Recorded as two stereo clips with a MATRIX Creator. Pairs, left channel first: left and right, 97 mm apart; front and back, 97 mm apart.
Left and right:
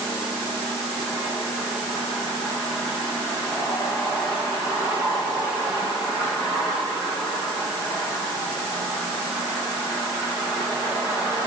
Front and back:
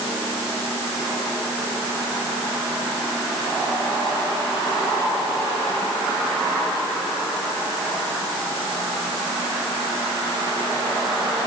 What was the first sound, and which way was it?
Only background noise.